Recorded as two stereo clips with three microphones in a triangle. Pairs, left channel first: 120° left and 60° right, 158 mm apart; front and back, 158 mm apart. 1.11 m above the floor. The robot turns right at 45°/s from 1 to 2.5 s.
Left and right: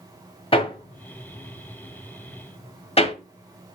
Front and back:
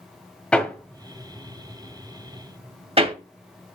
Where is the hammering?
80° left, 1.3 m; by 3.1 s 150° left, 1.3 m.